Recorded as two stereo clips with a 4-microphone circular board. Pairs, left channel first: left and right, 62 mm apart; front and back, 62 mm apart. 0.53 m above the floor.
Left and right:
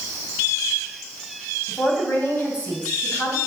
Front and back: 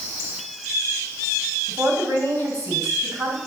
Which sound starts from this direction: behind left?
A woman speaking, at 1.7 s.